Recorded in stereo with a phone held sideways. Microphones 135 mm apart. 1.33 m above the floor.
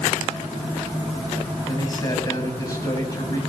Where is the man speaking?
25° left (ahead or behind), 7.5 m.